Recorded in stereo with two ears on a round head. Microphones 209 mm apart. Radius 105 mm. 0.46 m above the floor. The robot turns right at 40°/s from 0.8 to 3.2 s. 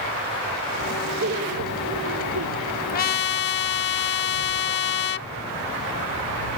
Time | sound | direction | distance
1.2 | laughter | 140° right | ?
2.9 | a trumpet | 40° left (ahead or behind) | ?